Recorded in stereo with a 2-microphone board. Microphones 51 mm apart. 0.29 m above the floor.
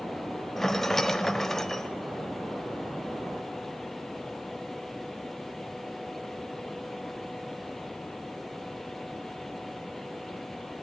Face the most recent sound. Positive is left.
turn(degrees=10)  # may be behind; listen again after turning